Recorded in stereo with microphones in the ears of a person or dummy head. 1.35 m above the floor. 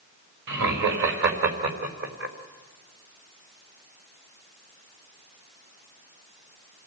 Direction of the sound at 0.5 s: 60° right (ahead or behind).